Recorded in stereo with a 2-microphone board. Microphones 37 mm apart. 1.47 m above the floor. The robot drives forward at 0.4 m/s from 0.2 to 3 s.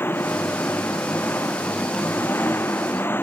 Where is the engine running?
65° left (ahead or behind).